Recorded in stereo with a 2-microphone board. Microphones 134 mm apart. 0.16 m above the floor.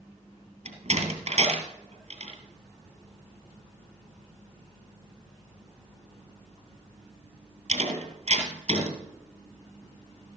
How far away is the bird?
No bird in this recording.